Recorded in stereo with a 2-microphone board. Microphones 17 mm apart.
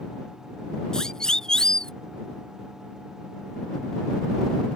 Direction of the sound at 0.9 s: 45° left (ahead or behind).